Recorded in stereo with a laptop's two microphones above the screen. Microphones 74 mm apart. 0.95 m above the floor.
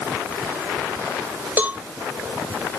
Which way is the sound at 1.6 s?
25° right (ahead or behind).